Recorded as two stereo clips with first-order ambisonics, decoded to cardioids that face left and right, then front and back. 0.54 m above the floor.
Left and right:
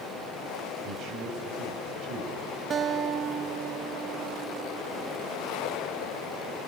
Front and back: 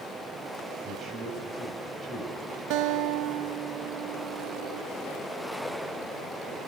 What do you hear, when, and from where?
0.8 s a man speaking: 120° right, 3.5 m
2.7 s a guitar: 155° right, 0.5 m